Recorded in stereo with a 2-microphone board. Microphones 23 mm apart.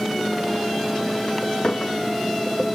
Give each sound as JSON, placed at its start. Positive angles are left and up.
{"t": 1.6, "sound": "a clink", "side_deg": 45}